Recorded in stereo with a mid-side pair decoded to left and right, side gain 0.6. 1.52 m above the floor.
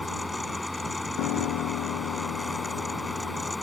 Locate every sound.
0.0 s a fan: 10° left
1.2 s a piano: 70° left